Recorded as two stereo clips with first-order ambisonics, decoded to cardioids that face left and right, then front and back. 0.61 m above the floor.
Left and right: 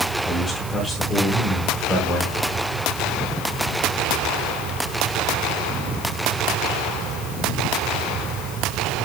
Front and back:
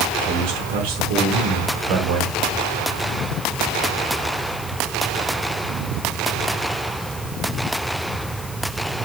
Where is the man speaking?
Straight behind, 4.5 m.